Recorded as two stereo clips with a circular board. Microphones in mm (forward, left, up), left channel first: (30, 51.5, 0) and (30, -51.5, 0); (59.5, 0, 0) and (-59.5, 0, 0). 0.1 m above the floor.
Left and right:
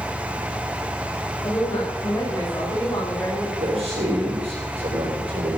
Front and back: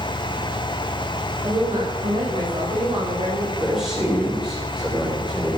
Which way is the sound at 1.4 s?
135° left.